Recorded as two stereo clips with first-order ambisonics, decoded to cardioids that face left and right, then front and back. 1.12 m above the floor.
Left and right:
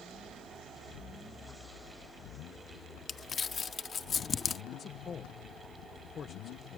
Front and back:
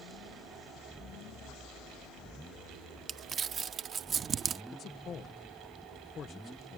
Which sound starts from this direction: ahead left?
A man speaking, at 4.7 s.